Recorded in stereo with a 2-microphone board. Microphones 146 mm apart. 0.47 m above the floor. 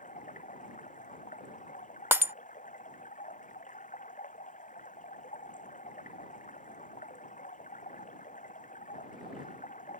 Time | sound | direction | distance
0.0 | running water | 60° left (ahead or behind) | ?
2.1 | breaking glass | 15° right (ahead or behind) | ?